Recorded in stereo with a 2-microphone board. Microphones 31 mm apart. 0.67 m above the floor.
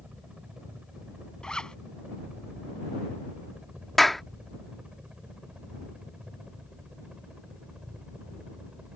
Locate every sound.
0.0 s a helicopter: 35° right (ahead or behind)
1.4 s a zipper: 25° left (ahead or behind)
4.0 s a clap: 10° left (ahead or behind)